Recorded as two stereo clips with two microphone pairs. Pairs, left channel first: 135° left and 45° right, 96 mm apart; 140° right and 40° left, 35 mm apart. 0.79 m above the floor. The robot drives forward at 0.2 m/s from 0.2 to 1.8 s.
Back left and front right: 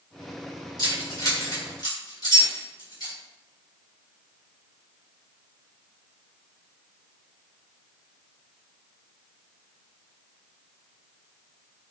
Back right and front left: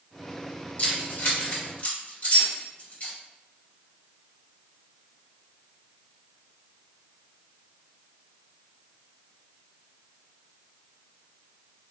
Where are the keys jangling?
175° right, 1.6 m.